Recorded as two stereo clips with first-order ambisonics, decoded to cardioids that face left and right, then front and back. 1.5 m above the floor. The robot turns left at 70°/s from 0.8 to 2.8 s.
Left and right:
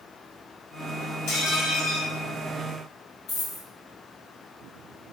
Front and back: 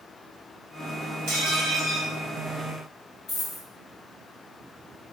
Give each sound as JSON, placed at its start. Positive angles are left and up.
{"t": 1.3, "sound": "dishes clattering", "azimuth_deg": 140, "distance_m": 1.9}
{"t": 3.3, "sound": "a dropped coin", "azimuth_deg": 55, "distance_m": 2.0}